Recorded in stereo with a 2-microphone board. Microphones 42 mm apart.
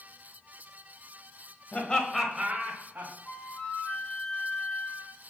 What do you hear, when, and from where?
1.7 s laughter: 30° left (ahead or behind), 1.3 m; by 3.1 s 50° right (ahead or behind), 1.8 m
3.2 s a flute: 30° left (ahead or behind), 0.6 m